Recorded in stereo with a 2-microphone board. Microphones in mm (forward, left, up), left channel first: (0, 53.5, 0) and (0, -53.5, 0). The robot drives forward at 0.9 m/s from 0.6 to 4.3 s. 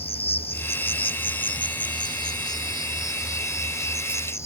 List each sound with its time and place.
0.0 s an insect: 70° left (ahead or behind); by 4.5 s 25° left (ahead or behind)